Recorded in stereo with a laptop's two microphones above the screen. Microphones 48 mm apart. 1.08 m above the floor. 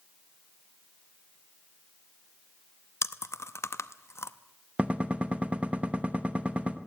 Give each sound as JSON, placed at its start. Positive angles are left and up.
{"t": 3.0, "sound": "chewing", "side_deg": 70, "distance_m": 0.7}
{"t": 4.8, "sound": "a gunshot", "side_deg": -30, "distance_m": 1.0}